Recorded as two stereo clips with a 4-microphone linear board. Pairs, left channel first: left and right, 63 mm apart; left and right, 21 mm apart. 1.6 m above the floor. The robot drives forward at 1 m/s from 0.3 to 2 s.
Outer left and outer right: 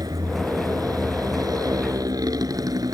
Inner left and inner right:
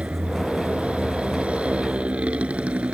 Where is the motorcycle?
80° right; by 2.9 s 75° right (ahead or behind).